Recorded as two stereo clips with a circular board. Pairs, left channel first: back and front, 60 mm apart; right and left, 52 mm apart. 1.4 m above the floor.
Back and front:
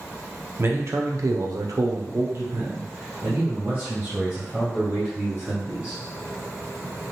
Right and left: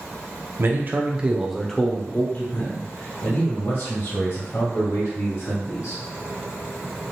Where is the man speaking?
50° left, 0.7 m; by 6.0 s 75° right, 2.5 m.